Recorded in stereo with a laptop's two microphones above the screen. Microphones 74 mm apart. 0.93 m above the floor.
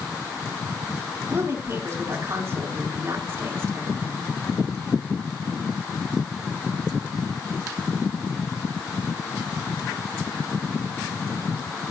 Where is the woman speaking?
35° right (ahead or behind), 8.5 m.